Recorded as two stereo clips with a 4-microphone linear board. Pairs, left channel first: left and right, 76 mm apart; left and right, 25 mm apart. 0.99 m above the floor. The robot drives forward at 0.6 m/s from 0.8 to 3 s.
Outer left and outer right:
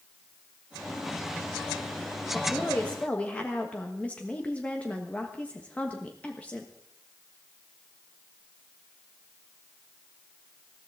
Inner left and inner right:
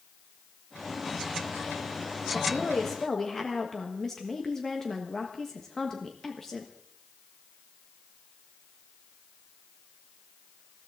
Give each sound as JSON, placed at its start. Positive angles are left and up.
{"t": 2.3, "sound": "a woman speaking", "side_deg": 15, "distance_m": 1.6}